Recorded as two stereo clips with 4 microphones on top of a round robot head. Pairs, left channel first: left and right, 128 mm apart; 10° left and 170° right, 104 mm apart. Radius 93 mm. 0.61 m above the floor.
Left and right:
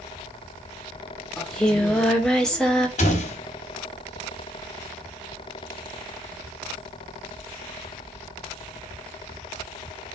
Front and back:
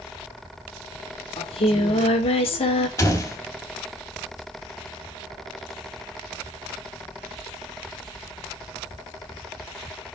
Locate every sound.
1.4 s singing: 5° left, 2 m
3.0 s a door slam: 70° left, 3 m